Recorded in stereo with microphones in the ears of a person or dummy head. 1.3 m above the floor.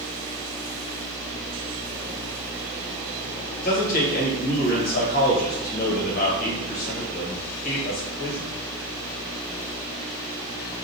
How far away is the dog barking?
I don't hear a dog barking.